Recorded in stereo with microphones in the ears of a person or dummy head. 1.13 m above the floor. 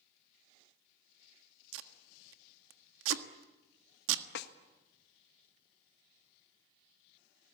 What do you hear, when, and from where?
1.7 s tape being pulled: 90° right, 1.4 m
4.3 s a snare drum: 65° left (ahead or behind), 1.4 m